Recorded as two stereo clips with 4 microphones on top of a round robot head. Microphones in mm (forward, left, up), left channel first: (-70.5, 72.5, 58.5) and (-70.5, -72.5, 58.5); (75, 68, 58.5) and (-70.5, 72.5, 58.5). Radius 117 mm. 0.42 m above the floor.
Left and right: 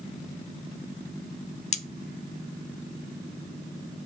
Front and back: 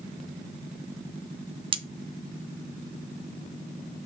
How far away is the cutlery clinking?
About 0.9 m.